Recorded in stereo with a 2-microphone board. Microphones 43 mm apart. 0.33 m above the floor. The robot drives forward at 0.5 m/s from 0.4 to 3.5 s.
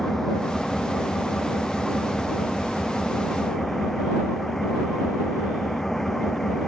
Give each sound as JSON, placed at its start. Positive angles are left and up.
{"t": 0.0, "sound": "an engine running", "side_deg": 10}